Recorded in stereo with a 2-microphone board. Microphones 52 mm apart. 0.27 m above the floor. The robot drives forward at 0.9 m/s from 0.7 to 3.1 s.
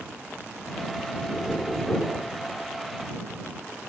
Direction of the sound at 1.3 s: 15° left (ahead or behind).